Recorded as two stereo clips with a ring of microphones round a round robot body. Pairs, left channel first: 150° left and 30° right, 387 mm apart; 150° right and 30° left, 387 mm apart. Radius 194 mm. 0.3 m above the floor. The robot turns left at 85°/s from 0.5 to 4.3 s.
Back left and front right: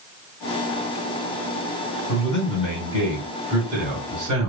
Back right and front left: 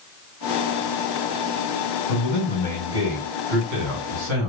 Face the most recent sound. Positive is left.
turn(degrees=-5)